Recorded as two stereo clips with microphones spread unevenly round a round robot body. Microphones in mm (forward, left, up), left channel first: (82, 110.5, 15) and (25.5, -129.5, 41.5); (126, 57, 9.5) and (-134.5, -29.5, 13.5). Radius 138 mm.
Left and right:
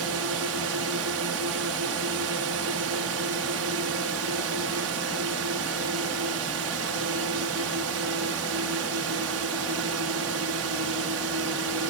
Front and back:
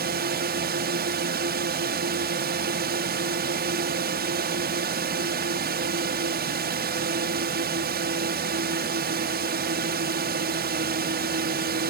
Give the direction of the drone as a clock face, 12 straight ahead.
4 o'clock.